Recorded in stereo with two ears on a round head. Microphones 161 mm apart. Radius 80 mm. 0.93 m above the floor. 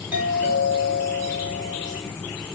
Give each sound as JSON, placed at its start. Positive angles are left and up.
{"t": 0.1, "sound": "a doorbell", "side_deg": -10, "distance_m": 3.0}